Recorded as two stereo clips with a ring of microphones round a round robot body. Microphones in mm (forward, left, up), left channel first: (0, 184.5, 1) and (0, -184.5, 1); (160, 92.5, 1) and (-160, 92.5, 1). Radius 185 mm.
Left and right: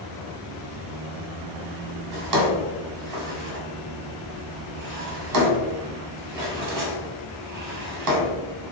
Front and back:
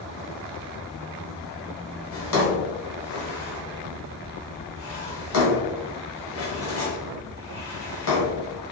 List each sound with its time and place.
2.1 s a drawer: 55° right, 1.1 m